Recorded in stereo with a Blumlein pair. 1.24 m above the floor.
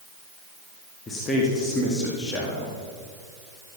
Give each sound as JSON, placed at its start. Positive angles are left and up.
{"t": 1.1, "sound": "a man speaking", "azimuth_deg": 20, "distance_m": 1.9}